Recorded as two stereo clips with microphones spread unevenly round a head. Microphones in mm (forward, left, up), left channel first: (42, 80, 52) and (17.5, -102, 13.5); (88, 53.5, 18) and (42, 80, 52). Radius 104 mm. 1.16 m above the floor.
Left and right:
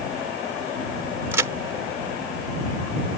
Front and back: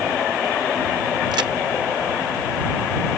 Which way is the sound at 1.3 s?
Straight behind.